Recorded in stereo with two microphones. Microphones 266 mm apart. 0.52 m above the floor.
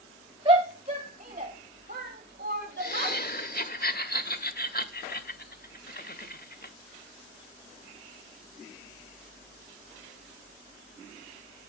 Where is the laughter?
35° left (ahead or behind), 1.1 m.